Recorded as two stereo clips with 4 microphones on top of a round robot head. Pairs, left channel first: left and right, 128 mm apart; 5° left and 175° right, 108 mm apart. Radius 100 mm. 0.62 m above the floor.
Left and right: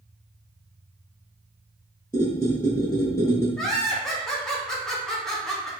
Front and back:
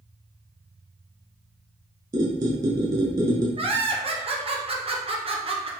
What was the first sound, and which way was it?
A squeak, 155° left.